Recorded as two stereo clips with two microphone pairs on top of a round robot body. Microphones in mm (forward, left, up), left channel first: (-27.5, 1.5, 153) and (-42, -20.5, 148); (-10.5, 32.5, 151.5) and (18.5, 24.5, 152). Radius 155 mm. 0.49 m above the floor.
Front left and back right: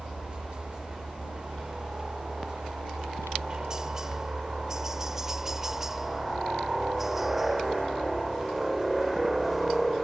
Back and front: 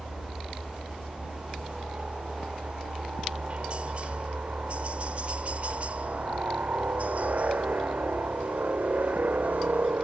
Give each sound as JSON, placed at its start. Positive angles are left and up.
{"t": 0.0, "sound": "a helicopter", "azimuth_deg": -80}